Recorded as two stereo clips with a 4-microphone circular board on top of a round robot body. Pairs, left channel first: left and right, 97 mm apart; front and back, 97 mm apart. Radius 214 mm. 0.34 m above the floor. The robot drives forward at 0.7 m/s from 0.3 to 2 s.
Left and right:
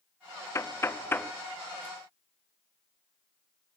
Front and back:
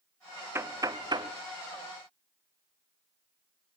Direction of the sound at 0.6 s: 130° left.